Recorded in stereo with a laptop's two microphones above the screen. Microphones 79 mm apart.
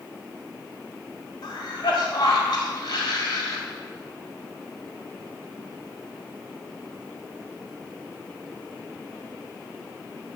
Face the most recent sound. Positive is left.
turn(degrees=70)  # may be behind; listen again after turning